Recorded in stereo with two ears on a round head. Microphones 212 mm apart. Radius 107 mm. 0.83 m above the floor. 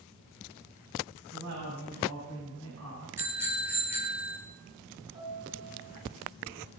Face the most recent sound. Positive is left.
turn(degrees=-25)  # may be behind; listen again after turning